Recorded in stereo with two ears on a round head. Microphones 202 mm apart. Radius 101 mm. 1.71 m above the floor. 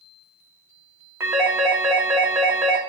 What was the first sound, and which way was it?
A phone ringing, 10° right (ahead or behind).